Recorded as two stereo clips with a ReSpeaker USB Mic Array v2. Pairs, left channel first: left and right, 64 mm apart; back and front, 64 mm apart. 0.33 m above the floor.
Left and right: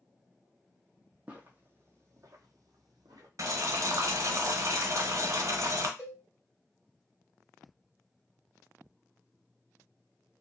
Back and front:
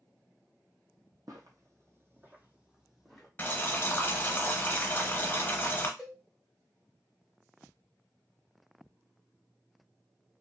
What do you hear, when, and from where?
1.3 s footsteps: 20° right, 0.9 m; by 3.3 s 95° right, 1.0 m
3.4 s boiling: 120° right, 0.7 m
6.0 s a cowbell: 80° left, 1.7 m